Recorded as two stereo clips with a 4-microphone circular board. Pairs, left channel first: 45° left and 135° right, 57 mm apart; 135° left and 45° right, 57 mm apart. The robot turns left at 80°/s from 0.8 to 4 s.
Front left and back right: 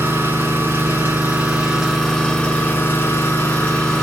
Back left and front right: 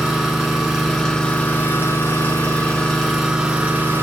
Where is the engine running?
130° right, 1.6 m; by 4.0 s 30° right, 1.6 m.